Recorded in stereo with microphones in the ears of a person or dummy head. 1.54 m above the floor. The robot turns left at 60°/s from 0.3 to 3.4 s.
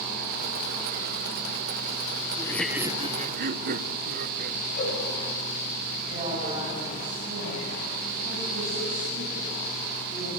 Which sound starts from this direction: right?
A woman speaking, at 6.1 s.